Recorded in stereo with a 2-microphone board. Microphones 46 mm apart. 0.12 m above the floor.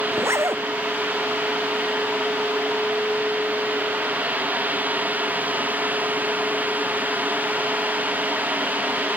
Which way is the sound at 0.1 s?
80° right.